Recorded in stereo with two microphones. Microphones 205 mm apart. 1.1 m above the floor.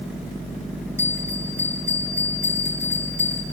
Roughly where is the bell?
Centre.